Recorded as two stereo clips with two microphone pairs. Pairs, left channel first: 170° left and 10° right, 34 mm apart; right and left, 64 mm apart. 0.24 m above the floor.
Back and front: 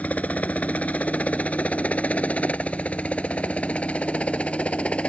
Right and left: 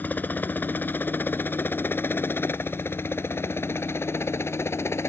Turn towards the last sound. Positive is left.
turn(degrees=-135)